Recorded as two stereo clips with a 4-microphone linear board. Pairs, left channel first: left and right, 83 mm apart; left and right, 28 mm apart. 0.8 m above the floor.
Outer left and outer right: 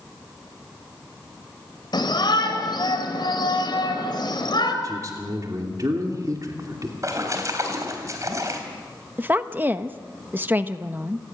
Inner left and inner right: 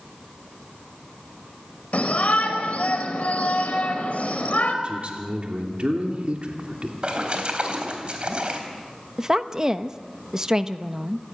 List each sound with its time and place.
1.9 s a shout: 60° left (ahead or behind), 4 m
4.8 s a man speaking: 45° right (ahead or behind), 2.5 m
7.0 s a splash: 40° right (ahead or behind), 4 m
9.2 s a woman speaking: 25° right (ahead or behind), 0.9 m